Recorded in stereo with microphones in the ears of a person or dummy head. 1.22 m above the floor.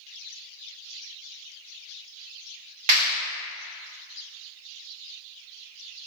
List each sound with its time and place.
2.9 s a clap: 35° right (ahead or behind), 1.4 m